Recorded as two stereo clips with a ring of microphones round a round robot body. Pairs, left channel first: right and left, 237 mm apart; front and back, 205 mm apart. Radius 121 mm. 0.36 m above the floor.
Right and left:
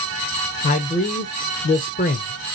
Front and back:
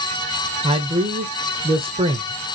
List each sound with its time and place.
0.6 s a man speaking: 130° right, 1.0 m